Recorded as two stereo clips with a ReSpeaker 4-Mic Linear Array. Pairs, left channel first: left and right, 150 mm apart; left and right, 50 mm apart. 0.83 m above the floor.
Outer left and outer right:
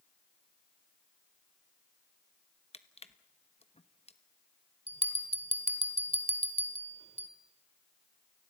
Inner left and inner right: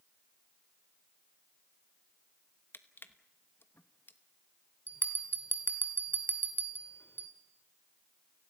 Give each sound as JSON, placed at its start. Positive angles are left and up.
{"t": 2.7, "sound": "crushing", "side_deg": 45, "distance_m": 1.0}
{"t": 4.9, "sound": "a bell", "side_deg": 45, "distance_m": 1.8}